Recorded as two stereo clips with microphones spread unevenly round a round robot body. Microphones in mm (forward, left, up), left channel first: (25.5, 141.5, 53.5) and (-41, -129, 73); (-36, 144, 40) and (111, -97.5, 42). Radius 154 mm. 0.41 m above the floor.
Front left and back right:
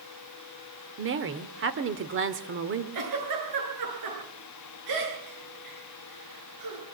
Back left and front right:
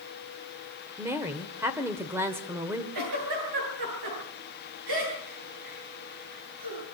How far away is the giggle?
About 9 m.